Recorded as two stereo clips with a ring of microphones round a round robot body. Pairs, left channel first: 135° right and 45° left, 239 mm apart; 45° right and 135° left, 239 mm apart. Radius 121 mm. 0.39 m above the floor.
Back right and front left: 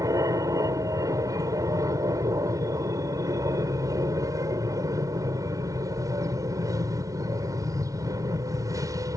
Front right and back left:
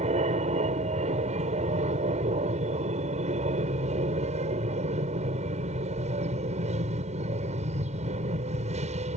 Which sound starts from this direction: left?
An aircraft, at 0.0 s.